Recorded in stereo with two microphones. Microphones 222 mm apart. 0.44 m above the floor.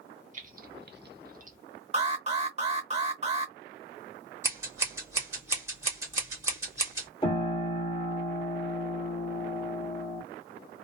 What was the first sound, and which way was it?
Keys jangling, 35° right (ahead or behind).